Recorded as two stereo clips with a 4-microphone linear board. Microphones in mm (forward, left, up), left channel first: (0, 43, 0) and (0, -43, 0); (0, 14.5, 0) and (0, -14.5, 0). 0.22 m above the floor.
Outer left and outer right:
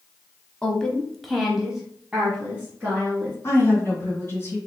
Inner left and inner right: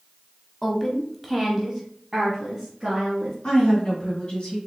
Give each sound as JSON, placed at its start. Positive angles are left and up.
{"t": 0.6, "sound": "a woman speaking", "side_deg": 10, "distance_m": 1.1}
{"t": 3.4, "sound": "a woman speaking", "side_deg": 30, "distance_m": 2.0}